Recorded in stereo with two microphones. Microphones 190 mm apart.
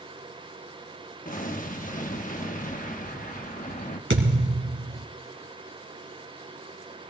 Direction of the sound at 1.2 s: 45° left (ahead or behind).